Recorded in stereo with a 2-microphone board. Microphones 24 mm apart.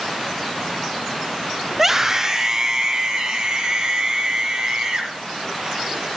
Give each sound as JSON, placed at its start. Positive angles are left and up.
{"t": 1.7, "sound": "a scream", "side_deg": -10, "distance_m": 1.4}